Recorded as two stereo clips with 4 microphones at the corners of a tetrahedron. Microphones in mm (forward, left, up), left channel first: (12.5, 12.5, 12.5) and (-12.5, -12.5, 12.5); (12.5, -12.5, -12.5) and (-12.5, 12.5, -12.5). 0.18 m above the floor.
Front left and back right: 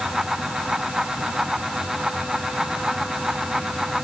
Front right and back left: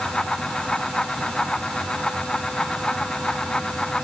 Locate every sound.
Only background noise.